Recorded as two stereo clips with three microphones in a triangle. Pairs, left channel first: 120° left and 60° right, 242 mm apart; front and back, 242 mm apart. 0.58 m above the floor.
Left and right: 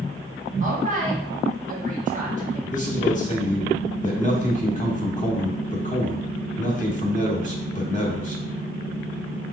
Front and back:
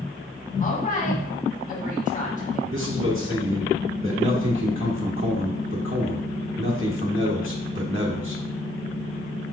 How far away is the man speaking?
About 1.1 m.